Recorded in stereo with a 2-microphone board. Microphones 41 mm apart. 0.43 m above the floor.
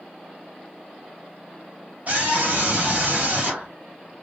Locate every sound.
2.1 s a scream: 40° right (ahead or behind), 2.5 m